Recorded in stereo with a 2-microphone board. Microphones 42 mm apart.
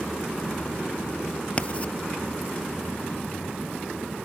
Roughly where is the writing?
Left.